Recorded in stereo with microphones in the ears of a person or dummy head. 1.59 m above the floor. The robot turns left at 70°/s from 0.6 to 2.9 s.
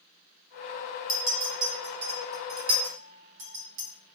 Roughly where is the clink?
Left.